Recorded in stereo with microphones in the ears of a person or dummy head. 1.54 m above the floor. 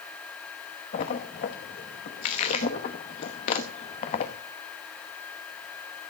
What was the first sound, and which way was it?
A splash, 25° left (ahead or behind).